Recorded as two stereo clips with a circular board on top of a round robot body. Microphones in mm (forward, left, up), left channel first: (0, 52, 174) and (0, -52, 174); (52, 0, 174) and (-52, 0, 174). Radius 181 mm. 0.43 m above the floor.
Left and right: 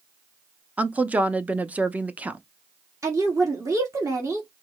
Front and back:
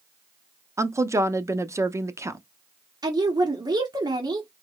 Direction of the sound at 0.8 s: 150° right.